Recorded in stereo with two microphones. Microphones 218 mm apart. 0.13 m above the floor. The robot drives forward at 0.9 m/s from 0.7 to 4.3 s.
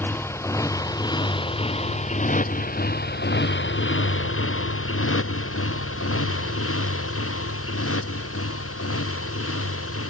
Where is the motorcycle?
10° left (ahead or behind); by 10.1 s 90° left.